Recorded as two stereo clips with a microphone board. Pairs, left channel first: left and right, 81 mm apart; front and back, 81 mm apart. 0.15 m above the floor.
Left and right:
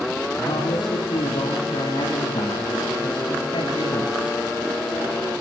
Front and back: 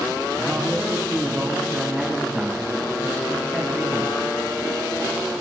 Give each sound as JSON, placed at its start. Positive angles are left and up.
{"t": 0.4, "sound": "a man speaking", "azimuth_deg": 90, "distance_m": 9.5}